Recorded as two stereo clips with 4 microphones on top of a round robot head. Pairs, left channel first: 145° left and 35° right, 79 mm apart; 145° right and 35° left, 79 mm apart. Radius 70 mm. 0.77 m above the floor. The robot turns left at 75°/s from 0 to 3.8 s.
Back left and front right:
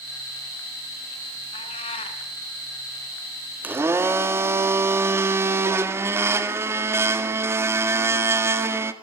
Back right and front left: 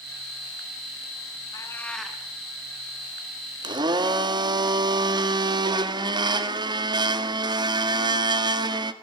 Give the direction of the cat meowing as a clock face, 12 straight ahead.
7 o'clock.